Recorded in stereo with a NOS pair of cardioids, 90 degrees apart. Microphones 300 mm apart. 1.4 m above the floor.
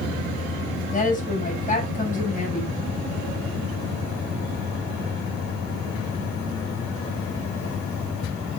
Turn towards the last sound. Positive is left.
turn(degrees=25)